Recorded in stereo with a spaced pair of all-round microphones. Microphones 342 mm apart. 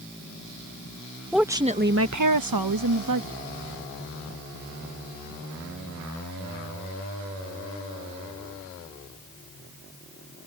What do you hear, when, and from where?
1.3 s a woman speaking: centre (ahead or behind); by 3.4 s 65° right (ahead or behind)